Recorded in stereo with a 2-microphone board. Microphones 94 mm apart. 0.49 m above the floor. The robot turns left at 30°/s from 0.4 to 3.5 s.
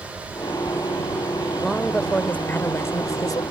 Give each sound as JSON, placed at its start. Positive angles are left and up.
{"t": 1.6, "sound": "a woman speaking", "azimuth_deg": 180}